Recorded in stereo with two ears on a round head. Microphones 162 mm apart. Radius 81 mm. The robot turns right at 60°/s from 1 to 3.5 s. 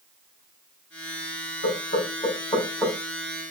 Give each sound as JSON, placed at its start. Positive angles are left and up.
{"t": 1.6, "sound": "knocking", "side_deg": 65, "distance_m": 1.0}